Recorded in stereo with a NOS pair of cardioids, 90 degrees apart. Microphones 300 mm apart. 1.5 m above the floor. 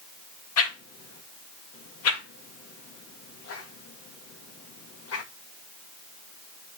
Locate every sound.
0.6 s a whoosh: 60° left, 2 m